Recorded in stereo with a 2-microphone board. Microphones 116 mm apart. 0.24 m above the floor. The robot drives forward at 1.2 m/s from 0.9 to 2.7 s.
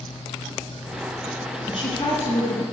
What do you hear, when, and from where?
1.7 s a woman speaking: 60° left (ahead or behind), 3.5 m; by 2.6 s 50° left (ahead or behind), 4 m